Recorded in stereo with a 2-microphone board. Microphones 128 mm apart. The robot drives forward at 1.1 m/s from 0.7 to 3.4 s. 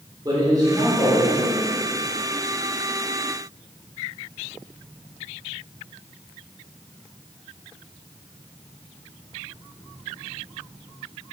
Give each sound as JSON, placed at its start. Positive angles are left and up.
{"t": 0.2, "sound": "a man speaking", "side_deg": -30, "distance_m": 3.5}